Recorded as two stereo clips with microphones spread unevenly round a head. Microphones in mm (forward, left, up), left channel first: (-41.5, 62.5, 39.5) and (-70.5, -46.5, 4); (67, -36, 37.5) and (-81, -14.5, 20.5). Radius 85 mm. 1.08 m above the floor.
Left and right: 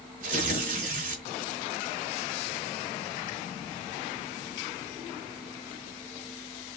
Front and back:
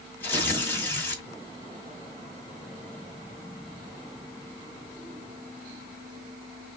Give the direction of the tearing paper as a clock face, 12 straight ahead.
3 o'clock.